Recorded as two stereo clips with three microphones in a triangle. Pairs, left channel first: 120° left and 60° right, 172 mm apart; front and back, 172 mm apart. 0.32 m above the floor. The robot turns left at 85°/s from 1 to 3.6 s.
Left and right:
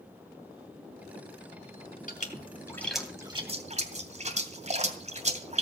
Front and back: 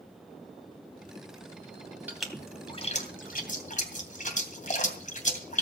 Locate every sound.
2.1 s a splash: 105° left, 2.5 m; by 5.6 s 25° right, 2.5 m